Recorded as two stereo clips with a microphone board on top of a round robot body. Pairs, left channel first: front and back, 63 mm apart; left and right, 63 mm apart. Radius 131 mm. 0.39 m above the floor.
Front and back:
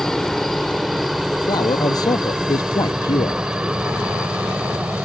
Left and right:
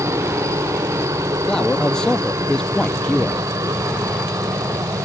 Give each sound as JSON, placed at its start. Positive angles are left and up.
{"t": 0.0, "sound": "a helicopter", "azimuth_deg": -85}
{"t": 1.5, "sound": "a man speaking", "azimuth_deg": 10}